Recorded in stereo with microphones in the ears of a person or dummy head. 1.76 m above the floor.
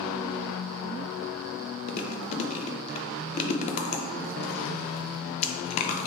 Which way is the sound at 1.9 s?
45° left (ahead or behind).